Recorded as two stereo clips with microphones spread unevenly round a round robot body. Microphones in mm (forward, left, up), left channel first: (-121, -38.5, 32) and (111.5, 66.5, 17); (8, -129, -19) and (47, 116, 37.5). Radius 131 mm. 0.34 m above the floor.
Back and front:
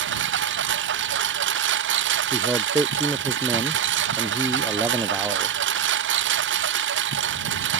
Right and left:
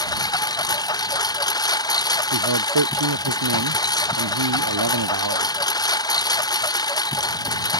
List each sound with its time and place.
0.0 s a lawn mower: 25° right
2.3 s a man speaking: 105° left